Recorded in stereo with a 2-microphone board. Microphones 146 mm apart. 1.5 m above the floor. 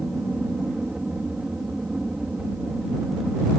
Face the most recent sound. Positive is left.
turn(degrees=-5)  # may be behind; listen again after turning